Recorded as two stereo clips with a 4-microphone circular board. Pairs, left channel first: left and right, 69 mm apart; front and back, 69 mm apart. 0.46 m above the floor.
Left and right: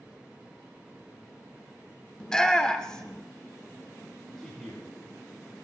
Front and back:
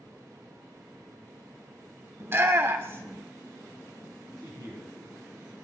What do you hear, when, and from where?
2.2 s a shout: 165° left, 0.9 m
4.4 s a man speaking: 175° left, 4 m